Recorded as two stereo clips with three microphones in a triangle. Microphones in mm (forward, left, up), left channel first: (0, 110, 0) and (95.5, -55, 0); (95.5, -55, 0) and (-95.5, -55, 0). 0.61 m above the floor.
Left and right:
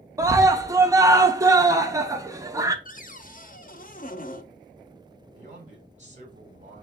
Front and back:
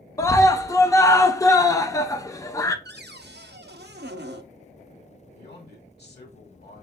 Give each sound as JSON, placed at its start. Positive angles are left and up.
{"t": 0.2, "sound": "a scream", "azimuth_deg": -30, "distance_m": 0.6}
{"t": 2.9, "sound": "a cupboard door", "azimuth_deg": 160, "distance_m": 0.5}
{"t": 5.3, "sound": "a man speaking", "azimuth_deg": -15, "distance_m": 1.9}